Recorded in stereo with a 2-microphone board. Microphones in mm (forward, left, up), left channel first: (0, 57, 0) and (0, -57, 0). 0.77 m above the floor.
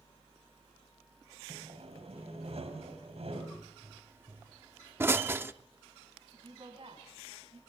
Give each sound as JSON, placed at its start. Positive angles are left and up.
{"t": 1.5, "sound": "sawing", "side_deg": -65, "distance_m": 3.5}
{"t": 3.5, "sound": "a pop", "side_deg": -20, "distance_m": 0.6}
{"t": 6.3, "sound": "a woman speaking", "side_deg": -55, "distance_m": 5.5}